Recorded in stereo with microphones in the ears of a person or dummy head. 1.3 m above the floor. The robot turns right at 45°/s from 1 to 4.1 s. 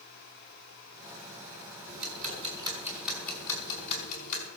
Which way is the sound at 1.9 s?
55° right.